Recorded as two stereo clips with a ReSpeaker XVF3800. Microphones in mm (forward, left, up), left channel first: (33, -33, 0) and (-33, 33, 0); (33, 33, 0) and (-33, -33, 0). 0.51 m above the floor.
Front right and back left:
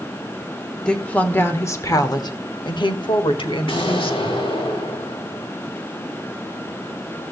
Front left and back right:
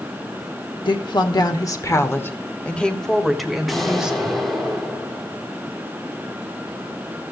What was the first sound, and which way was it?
A woman speaking, 35° left.